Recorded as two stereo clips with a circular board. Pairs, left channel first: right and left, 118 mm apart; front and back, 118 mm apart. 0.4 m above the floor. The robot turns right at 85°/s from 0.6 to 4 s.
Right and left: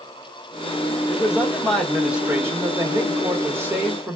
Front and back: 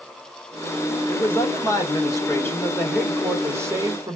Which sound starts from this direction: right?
A man speaking, at 1.1 s.